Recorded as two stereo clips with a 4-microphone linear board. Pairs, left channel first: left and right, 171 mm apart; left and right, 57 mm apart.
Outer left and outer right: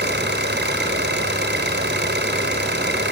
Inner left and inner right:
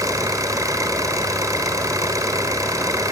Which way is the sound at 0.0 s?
85° right.